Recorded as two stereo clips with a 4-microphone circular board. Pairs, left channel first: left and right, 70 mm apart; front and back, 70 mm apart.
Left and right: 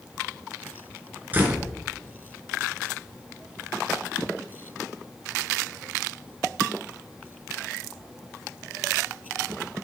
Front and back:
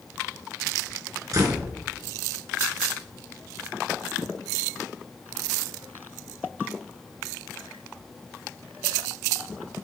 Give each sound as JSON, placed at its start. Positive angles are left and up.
{"t": 1.3, "sound": "a door slam", "azimuth_deg": -150, "distance_m": 1.9}